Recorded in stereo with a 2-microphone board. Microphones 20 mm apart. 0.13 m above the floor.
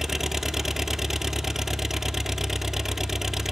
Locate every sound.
0.0 s an engine running: 20° right (ahead or behind), 0.8 m